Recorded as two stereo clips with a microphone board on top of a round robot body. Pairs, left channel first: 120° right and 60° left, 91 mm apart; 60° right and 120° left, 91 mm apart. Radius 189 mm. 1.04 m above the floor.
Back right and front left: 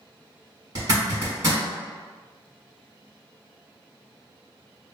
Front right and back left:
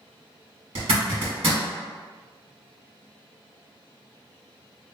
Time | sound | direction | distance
0.8 | a zipper | 110° left | 1.2 m